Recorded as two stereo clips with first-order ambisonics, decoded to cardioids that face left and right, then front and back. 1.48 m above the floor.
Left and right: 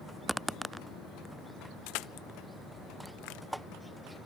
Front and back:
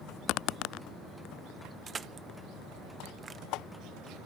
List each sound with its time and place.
1.9 s crushing: 110° left